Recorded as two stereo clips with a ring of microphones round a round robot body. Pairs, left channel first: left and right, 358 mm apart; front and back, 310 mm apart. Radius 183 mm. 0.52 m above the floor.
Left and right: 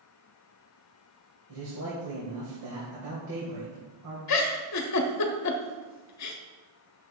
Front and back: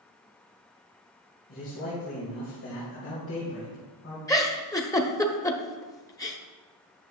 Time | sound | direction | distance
1.5 | a man speaking | 50° right | 2.5 m
4.3 | a giggle | 75° left | 1.1 m